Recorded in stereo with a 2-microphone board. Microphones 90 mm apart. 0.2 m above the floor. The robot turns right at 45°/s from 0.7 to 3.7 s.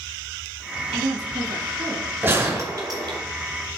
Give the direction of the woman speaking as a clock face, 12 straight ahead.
4 o'clock.